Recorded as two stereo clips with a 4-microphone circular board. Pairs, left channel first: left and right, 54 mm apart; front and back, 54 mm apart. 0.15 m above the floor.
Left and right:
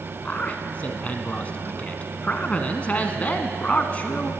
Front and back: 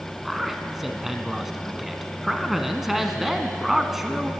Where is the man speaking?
95° left, 1.1 m.